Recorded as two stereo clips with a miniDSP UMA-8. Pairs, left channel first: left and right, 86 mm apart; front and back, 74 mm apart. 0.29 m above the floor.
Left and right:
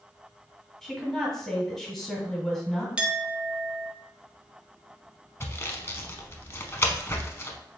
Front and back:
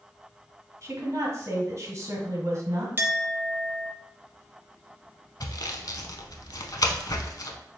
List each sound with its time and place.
0.8 s a woman speaking: 175° left, 1.6 m
3.0 s a clink: 155° right, 0.6 m
5.4 s sawing: 30° left, 0.6 m